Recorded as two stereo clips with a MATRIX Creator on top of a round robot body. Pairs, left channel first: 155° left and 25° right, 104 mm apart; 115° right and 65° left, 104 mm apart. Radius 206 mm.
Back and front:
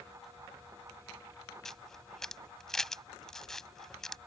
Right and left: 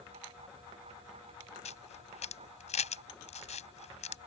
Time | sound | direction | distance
1.6 | a camera shutter | 115° right | ?